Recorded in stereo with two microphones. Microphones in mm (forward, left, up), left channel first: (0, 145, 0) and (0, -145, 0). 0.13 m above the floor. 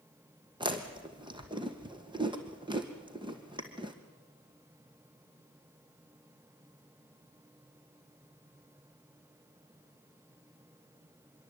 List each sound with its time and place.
0.6 s chewing: 15° right (ahead or behind), 2 m